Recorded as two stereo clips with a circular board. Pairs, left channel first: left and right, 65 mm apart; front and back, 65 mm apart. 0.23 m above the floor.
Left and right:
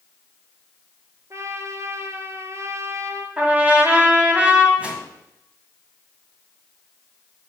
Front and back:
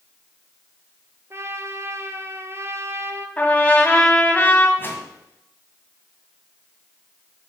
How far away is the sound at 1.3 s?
About 1.1 m.